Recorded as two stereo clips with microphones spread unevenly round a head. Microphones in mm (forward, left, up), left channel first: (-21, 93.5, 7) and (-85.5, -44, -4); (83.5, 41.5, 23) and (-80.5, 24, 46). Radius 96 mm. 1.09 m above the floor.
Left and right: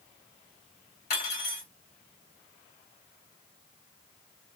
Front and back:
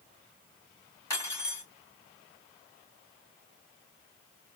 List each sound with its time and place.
1.1 s cutlery clinking: 80° left, 2.5 m